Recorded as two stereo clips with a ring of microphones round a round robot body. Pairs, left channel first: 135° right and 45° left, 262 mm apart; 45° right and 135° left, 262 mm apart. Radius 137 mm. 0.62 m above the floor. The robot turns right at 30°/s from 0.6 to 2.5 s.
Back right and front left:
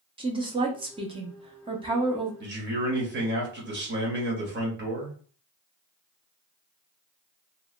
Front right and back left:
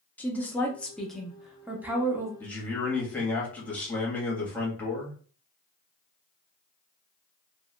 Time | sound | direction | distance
0.2 | a woman speaking | 25° left | 0.6 m
2.4 | a man speaking | 35° left | 1.2 m